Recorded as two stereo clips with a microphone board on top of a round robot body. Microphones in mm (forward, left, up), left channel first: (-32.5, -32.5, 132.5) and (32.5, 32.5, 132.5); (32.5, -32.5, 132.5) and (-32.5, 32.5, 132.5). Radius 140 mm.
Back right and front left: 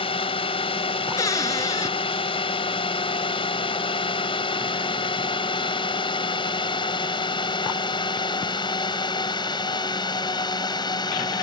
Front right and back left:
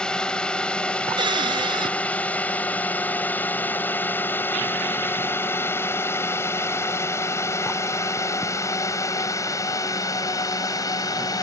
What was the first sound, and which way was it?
A drone, 125° right.